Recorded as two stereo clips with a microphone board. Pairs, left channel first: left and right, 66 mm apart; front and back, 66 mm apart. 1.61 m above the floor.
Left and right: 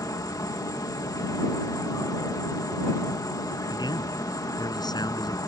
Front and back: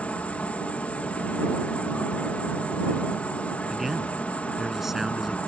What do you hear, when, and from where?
0.0 s an insect: 65° left
3.7 s a man speaking: 95° left